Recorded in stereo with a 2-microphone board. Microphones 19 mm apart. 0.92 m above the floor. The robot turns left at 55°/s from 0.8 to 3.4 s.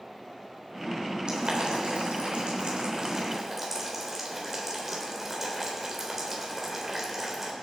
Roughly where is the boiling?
Right.